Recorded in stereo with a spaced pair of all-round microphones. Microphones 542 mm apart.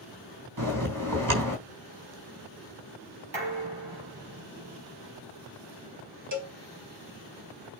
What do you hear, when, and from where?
0.6 s a bell: 40° right (ahead or behind), 4 m
3.3 s dishes clattering: 60° right (ahead or behind), 6 m
6.3 s a cowbell: 35° right (ahead or behind), 2.0 m